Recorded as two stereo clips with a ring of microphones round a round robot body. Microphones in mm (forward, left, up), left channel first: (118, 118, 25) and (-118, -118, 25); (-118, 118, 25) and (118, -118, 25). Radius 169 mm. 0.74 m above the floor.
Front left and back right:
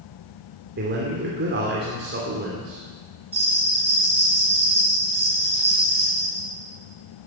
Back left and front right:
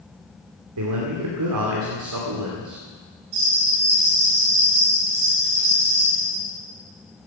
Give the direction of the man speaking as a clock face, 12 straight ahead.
3 o'clock.